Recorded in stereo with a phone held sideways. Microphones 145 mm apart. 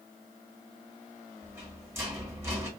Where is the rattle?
15° right (ahead or behind), 1.5 m.